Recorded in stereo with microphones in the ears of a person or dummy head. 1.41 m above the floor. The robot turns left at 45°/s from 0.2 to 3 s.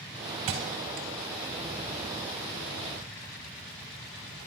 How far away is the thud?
About 1.5 m.